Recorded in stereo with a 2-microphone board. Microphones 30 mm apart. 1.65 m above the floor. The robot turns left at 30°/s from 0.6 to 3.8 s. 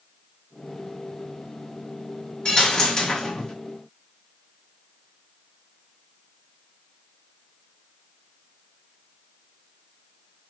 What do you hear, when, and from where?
2.5 s a dropped coin: 25° left (ahead or behind), 1.1 m; by 3.5 s 20° left (ahead or behind), 1.1 m